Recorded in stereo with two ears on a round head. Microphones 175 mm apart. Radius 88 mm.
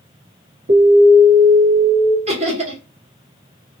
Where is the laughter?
35° right (ahead or behind), 1.5 m.